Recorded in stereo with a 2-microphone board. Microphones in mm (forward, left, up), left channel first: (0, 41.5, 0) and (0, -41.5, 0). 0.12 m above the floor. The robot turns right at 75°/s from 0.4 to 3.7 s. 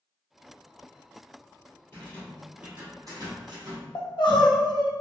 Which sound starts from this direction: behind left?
A rattle, at 1.9 s.